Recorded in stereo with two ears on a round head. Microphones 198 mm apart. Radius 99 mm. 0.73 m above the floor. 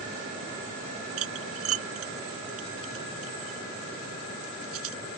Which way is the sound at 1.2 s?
70° right (ahead or behind).